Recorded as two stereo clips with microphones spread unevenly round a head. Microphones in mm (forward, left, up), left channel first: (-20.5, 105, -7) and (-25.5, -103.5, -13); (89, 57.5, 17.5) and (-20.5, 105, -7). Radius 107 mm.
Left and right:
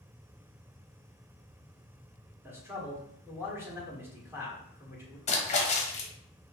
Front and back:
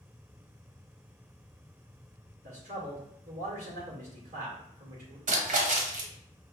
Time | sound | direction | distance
2.4 | a man speaking | 170° right | 1.6 m
5.3 | a splash | 145° left | 1.0 m